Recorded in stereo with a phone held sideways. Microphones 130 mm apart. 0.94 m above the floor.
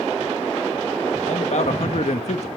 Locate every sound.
1.2 s a man speaking: 65° left (ahead or behind), 1.3 m